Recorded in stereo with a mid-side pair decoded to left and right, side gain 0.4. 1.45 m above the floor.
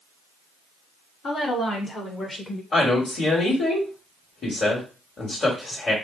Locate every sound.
1.2 s a woman speaking: 65° left, 2.5 m; by 2.6 s 35° left, 1.2 m
2.7 s a woman speaking: 45° left, 2.5 m